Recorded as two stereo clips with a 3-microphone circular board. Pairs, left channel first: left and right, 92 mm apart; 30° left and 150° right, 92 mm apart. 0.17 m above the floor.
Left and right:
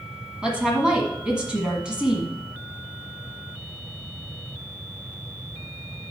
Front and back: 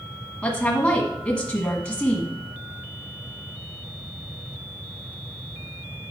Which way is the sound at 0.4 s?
25° right.